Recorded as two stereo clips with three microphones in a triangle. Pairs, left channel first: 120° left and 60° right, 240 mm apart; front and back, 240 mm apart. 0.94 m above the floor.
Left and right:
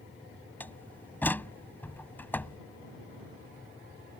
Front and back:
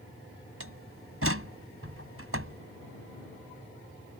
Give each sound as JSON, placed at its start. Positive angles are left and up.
{"t": 0.6, "sound": "a door slam", "azimuth_deg": -160}